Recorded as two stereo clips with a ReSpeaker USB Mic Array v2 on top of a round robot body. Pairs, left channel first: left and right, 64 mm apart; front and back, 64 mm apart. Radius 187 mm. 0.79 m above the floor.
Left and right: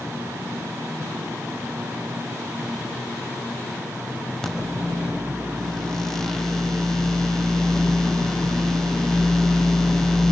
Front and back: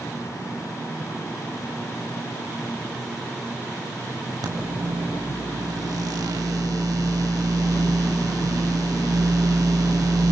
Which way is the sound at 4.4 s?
175° left.